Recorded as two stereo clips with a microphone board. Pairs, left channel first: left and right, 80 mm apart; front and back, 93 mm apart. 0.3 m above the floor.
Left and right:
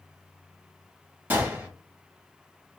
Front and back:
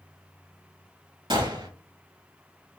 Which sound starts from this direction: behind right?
A gunshot, at 1.3 s.